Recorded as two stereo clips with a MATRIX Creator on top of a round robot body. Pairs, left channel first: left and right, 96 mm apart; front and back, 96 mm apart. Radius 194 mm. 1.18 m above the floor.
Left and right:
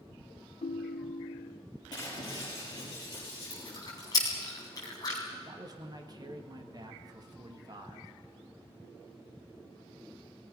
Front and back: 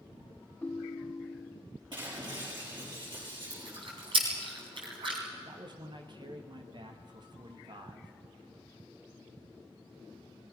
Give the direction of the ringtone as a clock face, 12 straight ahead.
10 o'clock.